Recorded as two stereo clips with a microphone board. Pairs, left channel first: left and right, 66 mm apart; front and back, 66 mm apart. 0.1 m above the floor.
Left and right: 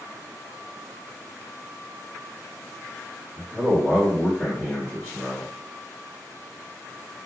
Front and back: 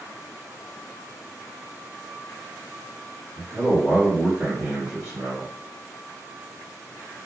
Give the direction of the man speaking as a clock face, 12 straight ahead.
8 o'clock.